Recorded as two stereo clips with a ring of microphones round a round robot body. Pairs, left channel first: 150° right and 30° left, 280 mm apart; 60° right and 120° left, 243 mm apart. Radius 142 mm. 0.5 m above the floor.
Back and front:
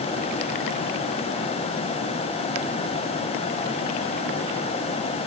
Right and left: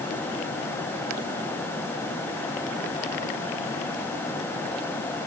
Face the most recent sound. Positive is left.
No sound to turn to.